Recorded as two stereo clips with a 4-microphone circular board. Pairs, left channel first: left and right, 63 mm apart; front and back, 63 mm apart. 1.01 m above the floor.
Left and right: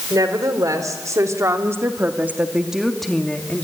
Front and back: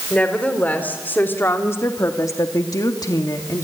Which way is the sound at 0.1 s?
70° right.